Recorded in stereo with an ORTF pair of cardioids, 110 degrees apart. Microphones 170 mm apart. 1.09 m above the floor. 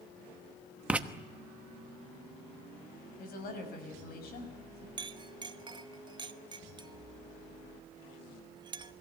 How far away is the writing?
About 1.1 m.